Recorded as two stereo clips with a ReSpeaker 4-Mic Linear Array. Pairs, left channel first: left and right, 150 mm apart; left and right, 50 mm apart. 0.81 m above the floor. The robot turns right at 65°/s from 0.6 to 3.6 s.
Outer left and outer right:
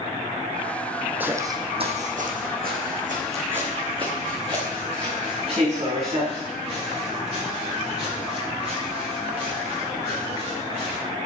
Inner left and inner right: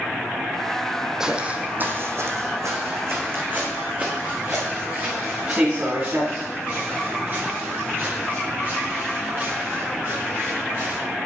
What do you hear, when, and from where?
1.2 s footsteps: 10° right (ahead or behind), 1.8 m; by 11.0 s 45° right (ahead or behind), 9.5 m